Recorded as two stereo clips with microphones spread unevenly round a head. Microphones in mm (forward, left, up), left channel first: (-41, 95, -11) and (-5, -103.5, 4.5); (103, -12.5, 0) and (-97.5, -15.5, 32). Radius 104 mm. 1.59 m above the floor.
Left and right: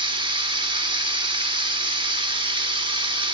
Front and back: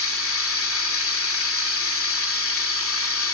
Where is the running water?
15° right, 1.9 m.